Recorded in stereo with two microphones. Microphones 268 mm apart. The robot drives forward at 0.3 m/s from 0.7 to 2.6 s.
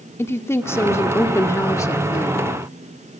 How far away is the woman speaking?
About 1.5 m.